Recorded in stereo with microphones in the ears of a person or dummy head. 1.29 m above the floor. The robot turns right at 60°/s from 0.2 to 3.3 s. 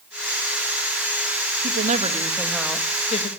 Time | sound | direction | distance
1.6 | a woman speaking | 55° right | 1.9 m